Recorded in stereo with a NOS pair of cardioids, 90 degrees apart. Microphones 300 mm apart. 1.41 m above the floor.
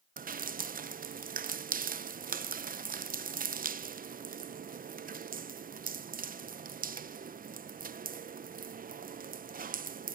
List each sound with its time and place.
0.2 s dripping: 30° right, 0.7 m